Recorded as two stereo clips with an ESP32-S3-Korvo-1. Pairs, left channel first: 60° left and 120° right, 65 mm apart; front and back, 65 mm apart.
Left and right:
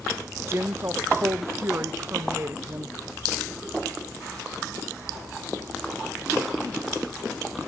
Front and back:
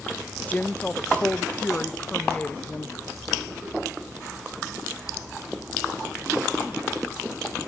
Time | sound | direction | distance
0.5 | a woman speaking | 70° right | 0.7 m